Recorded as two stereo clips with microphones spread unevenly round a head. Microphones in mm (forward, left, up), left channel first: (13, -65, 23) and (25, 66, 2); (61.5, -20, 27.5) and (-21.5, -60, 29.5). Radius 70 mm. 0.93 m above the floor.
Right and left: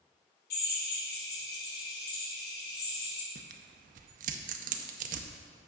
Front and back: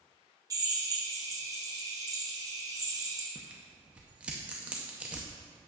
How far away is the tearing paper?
About 0.6 m.